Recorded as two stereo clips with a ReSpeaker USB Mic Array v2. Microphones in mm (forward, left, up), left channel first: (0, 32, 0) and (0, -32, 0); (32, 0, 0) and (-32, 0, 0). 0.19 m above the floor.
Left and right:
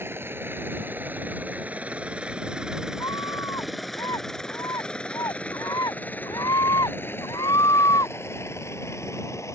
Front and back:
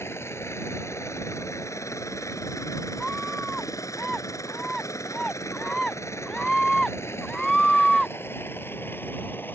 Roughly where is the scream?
Left.